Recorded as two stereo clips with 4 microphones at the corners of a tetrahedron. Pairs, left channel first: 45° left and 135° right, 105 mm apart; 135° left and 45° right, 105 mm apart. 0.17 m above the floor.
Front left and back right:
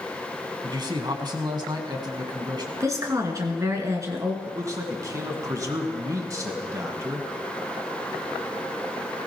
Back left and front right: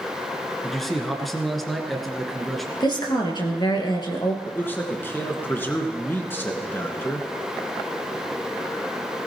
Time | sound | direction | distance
0.6 | a man speaking | 135° right | 1.8 m
2.8 | a woman speaking | 170° left | 2.5 m
4.5 | a man speaking | 170° right | 1.8 m